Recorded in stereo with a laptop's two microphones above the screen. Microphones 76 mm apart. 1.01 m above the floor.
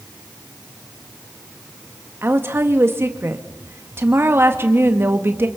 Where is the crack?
No crack in this recording.